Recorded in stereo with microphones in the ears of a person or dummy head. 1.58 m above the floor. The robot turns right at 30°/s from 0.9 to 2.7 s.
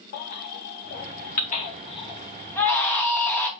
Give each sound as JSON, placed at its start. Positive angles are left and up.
{"t": 0.1, "sound": "a baby crying", "side_deg": 50, "distance_m": 0.8}